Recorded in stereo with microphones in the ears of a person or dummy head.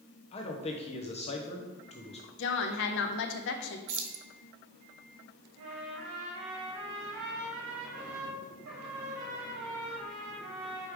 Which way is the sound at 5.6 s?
75° right (ahead or behind).